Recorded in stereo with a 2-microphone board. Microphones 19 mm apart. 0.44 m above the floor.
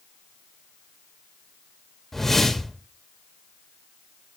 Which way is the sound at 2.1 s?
20° left (ahead or behind).